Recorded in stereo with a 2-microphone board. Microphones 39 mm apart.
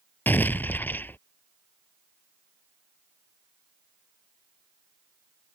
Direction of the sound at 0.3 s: 55° left (ahead or behind).